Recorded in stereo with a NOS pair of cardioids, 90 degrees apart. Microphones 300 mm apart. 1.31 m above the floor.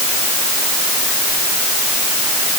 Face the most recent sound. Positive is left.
No sound to turn to.